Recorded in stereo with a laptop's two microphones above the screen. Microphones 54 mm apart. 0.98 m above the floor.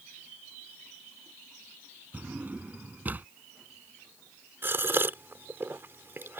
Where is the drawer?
30° right (ahead or behind).